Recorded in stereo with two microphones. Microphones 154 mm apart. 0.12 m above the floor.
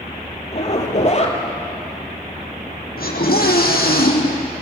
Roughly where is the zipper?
Left.